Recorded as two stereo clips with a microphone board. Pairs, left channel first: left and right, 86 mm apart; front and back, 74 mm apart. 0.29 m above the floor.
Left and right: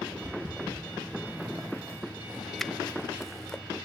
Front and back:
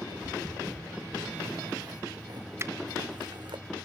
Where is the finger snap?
175° left, 0.8 m.